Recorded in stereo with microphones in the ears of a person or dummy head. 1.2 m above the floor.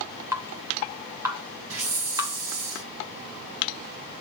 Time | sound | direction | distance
0.3 | dripping | 15° right (ahead or behind) | 1.4 m
1.7 | a hiss | 80° right | 3 m